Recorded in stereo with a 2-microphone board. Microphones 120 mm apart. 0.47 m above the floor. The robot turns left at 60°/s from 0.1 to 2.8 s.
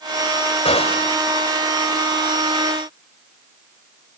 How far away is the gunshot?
About 2 m.